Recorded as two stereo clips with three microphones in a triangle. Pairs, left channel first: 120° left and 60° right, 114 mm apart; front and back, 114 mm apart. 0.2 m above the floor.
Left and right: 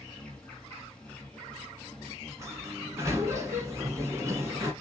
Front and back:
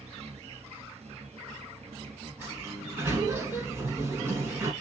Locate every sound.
0.0 s an insect: 160° right, 1.9 m
2.4 s a sliding door: 120° right, 1.3 m